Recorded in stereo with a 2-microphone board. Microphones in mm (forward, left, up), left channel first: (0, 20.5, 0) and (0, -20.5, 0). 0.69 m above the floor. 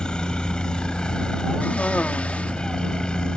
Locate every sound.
0.0 s a helicopter: 20° left (ahead or behind)
1.6 s a cough: 35° left (ahead or behind)